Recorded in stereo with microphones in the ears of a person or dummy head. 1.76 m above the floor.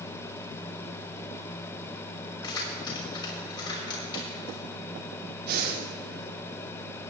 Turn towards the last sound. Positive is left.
turn(degrees=-55)  # may be behind; listen again after turning